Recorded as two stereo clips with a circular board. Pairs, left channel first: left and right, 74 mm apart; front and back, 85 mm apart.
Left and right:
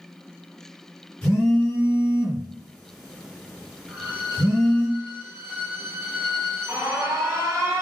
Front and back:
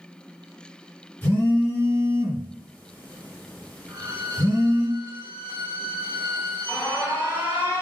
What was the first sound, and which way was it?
A phone buzzing, 25° left.